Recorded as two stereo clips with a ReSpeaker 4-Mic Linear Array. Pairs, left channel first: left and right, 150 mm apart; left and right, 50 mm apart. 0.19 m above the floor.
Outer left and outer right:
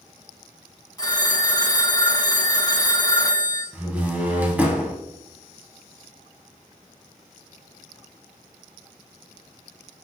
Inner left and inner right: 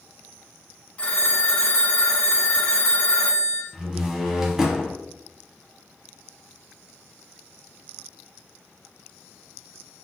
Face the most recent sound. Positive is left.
turn(degrees=-10)  # may be behind; listen again after turning